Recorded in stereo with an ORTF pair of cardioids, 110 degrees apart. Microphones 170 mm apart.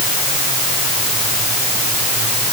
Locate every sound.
Only background noise.